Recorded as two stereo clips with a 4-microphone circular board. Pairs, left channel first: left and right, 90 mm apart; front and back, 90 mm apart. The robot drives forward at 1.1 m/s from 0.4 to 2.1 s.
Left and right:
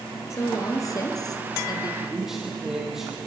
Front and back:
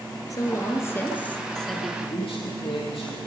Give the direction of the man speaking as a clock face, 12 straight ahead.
12 o'clock.